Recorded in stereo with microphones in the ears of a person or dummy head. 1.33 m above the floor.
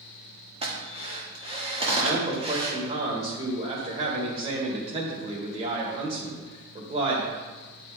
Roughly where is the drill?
Right.